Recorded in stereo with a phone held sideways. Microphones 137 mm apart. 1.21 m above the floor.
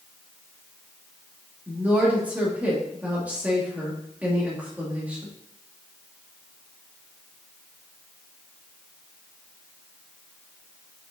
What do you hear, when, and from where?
1.7 s a woman speaking: 10° right (ahead or behind), 2 m